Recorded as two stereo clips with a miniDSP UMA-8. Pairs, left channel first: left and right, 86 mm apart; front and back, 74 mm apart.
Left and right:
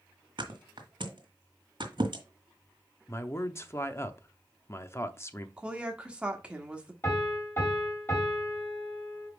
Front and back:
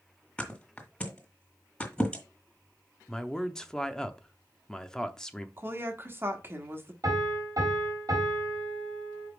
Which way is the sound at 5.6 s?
155° right.